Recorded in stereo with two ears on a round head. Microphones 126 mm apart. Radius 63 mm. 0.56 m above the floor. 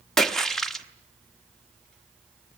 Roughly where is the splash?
Centre.